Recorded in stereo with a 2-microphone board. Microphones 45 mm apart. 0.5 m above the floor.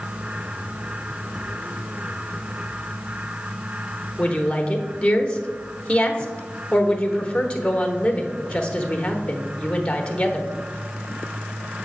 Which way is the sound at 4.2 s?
20° left (ahead or behind).